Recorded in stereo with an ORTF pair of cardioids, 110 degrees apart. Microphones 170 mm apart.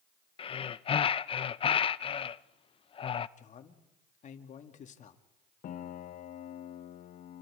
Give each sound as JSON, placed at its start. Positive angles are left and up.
{"t": 0.4, "sound": "breathing", "azimuth_deg": 35, "distance_m": 0.6}
{"t": 3.4, "sound": "a man speaking", "azimuth_deg": 50, "distance_m": 2.5}
{"t": 5.6, "sound": "a piano", "azimuth_deg": 55, "distance_m": 1.1}